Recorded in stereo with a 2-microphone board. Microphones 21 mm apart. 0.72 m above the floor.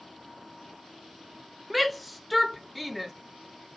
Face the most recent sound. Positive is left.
turn(degrees=0)  # may be behind; listen again after turning